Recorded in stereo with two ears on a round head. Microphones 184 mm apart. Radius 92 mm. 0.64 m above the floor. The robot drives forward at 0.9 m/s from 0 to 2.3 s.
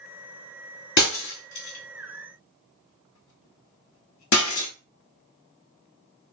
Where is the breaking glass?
60° left (ahead or behind), 2.5 m; by 4.7 s 85° left, 2 m.